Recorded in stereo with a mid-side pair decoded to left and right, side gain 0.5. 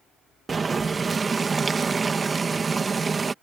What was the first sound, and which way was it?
Boiling, 30° right.